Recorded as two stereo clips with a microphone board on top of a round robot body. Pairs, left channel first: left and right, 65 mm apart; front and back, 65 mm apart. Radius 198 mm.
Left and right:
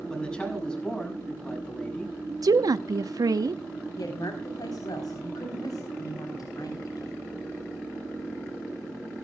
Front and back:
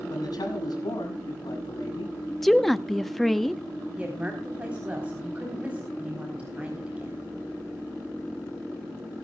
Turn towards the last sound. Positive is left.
turn(degrees=110)